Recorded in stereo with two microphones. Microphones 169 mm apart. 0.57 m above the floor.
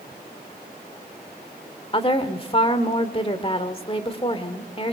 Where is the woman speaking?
35° left (ahead or behind), 1.6 m.